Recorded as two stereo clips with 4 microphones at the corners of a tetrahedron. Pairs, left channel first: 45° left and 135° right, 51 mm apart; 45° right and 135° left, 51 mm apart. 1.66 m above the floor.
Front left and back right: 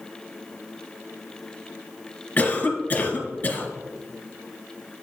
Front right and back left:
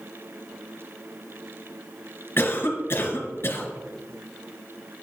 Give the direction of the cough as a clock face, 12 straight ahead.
12 o'clock.